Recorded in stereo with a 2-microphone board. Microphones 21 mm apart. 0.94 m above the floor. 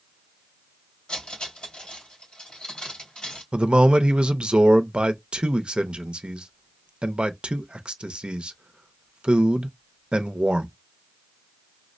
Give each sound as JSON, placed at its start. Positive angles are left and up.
{"t": 1.1, "sound": "cutlery clinking", "side_deg": 55, "distance_m": 2.0}
{"t": 3.5, "sound": "a man speaking", "side_deg": -60, "distance_m": 0.5}